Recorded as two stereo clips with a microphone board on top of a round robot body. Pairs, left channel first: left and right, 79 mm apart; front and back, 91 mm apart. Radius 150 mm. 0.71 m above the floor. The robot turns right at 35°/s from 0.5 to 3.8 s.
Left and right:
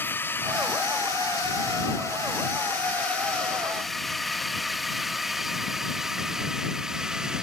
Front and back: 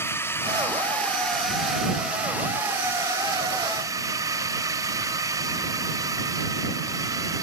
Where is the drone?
45° left; by 7.4 s 170° right.